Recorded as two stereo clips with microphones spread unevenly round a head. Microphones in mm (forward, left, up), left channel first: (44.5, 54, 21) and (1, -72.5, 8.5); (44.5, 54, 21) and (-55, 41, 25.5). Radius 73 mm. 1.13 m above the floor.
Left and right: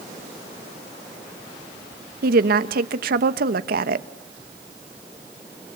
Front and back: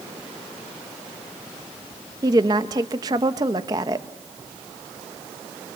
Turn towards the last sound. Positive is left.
turn(degrees=-110)